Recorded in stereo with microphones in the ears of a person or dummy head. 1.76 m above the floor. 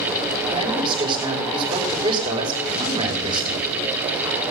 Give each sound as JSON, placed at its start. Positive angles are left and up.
{"t": 0.5, "sound": "a man speaking", "side_deg": -25, "distance_m": 5.5}